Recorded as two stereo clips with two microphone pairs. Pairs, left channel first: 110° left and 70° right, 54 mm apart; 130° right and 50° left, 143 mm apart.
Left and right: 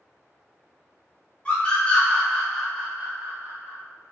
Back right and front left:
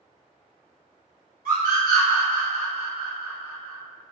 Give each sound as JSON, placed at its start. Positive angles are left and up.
{"t": 1.4, "sound": "a scream", "azimuth_deg": 45, "distance_m": 1.4}